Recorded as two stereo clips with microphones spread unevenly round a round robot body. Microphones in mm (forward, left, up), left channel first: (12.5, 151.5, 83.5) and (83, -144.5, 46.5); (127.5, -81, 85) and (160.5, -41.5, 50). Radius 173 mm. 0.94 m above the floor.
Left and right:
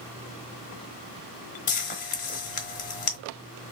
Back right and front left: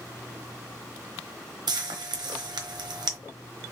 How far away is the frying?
About 1.0 m.